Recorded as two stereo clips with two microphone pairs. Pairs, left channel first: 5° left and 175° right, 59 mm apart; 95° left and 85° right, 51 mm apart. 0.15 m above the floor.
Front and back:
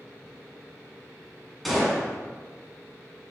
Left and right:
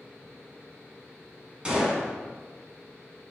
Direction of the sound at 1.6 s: 85° right.